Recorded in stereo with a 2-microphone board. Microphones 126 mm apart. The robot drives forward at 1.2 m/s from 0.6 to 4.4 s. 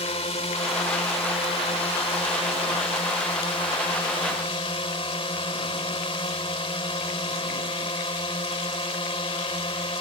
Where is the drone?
55° left (ahead or behind); by 10.0 s 45° left (ahead or behind).